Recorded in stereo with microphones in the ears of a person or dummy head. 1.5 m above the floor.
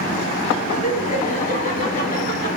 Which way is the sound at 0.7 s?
30° left (ahead or behind).